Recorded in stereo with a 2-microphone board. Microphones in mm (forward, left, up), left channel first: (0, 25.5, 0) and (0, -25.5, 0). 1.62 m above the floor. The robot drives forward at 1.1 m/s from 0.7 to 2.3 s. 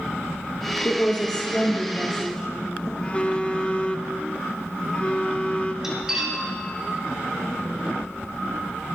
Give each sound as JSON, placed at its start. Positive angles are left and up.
{"t": 0.8, "sound": "a woman speaking", "side_deg": 45, "distance_m": 0.8}
{"t": 3.0, "sound": "a phone buzzing", "side_deg": 20, "distance_m": 0.7}
{"t": 5.8, "sound": "cutlery clinking", "side_deg": -10, "distance_m": 3.0}